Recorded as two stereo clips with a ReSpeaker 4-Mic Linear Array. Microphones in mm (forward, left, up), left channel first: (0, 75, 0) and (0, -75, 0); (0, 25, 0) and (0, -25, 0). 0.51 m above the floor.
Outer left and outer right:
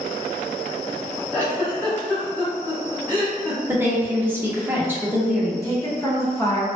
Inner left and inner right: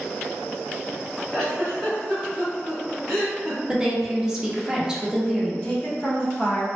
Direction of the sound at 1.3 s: 10° left (ahead or behind).